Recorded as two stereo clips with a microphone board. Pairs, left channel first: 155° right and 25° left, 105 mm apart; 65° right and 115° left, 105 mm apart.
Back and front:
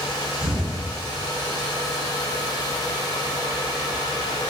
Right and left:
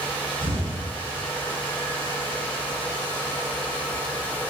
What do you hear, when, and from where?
0.4 s an explosion: 55° right, 3 m